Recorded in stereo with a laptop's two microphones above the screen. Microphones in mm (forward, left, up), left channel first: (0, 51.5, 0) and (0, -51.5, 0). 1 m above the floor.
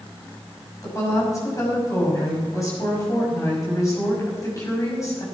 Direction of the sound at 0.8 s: 30° left (ahead or behind).